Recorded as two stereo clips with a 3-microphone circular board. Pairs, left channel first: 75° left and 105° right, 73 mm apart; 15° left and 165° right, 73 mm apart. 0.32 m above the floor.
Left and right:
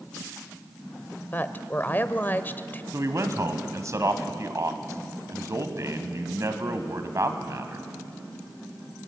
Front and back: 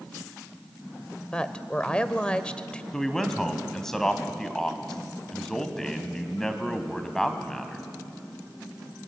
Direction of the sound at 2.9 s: 70° right.